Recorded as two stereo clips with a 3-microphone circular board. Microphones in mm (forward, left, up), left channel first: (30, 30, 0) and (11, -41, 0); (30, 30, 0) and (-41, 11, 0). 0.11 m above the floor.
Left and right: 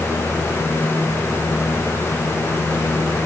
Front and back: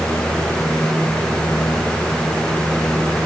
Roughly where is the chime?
I don't hear a chime.